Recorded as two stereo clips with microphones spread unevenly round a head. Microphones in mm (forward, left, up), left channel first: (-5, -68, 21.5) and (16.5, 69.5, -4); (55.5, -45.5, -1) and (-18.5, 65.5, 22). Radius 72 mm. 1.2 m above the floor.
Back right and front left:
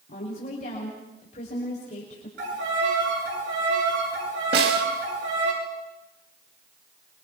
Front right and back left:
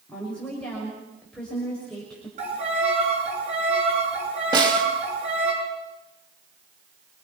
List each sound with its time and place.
0.1 s a woman speaking: 140° right, 5.5 m
2.4 s a violin: 85° left, 8.5 m
4.5 s a snare drum: 65° left, 3 m